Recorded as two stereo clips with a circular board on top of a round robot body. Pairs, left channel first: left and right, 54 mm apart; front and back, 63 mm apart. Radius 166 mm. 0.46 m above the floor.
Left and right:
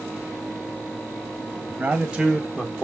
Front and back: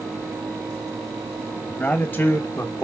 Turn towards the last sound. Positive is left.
turn(degrees=40)